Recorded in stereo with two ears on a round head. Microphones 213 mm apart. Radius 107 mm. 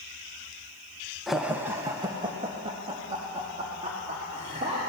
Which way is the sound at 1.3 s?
Centre (ahead or behind).